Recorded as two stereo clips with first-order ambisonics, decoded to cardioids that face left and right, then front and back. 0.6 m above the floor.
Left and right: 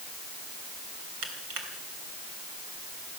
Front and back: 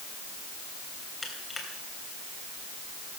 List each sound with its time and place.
1.2 s crushing: 75° right, 3 m